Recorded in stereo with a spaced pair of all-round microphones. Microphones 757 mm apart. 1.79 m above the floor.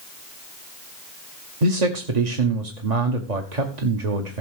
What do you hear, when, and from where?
1.6 s a man speaking: 60° right (ahead or behind), 1.4 m